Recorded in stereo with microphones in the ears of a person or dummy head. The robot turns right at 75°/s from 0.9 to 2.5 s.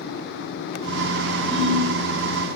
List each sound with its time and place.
1.5 s a ringtone: 25° right (ahead or behind), 6 m; by 1.9 s 50° right (ahead or behind), 6 m